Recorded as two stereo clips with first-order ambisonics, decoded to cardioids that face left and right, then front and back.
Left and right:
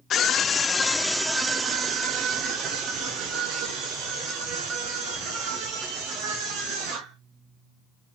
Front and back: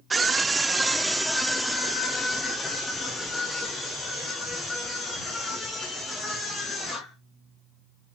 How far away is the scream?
About 0.9 m.